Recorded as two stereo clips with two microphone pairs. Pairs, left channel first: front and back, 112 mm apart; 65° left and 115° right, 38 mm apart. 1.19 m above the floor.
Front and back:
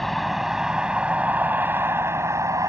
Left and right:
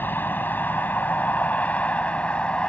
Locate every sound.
0.0 s a vehicle: 90° left; by 2.7 s 120° left